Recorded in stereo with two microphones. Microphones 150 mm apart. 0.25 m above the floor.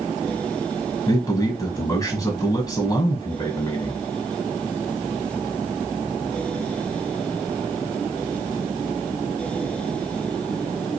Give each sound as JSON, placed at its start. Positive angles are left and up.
{"t": 1.1, "sound": "a man speaking", "side_deg": 25, "distance_m": 1.4}